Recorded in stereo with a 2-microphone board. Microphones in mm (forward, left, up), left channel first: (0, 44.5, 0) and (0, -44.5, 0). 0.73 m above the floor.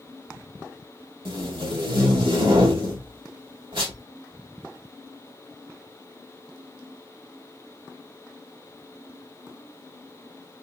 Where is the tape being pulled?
70° right (ahead or behind), 2 m.